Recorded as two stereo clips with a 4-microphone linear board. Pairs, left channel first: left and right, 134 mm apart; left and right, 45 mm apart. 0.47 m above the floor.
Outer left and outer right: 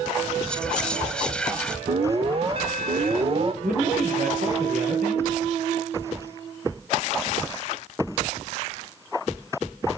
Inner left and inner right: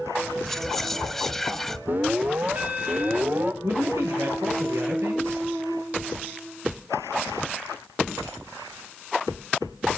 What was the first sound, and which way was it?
Whispering, 5° left (ahead or behind).